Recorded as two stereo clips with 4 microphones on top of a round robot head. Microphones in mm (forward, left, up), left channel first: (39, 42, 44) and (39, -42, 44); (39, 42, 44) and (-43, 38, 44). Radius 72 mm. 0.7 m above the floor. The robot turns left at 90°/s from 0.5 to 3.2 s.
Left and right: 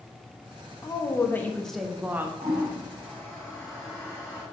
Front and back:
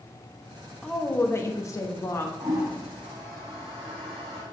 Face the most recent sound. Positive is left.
turn(degrees=170)